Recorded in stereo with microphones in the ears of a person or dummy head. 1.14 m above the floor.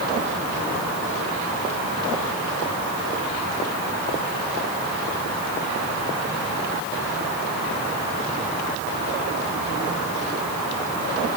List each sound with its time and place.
Only background noise.